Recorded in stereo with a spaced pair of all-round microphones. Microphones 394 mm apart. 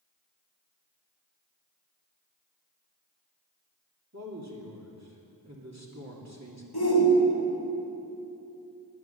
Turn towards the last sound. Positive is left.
turn(degrees=65)  # may be behind; listen again after turning